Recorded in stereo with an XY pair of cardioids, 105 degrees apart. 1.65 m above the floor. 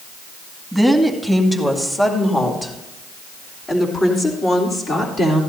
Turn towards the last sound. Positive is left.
turn(degrees=50)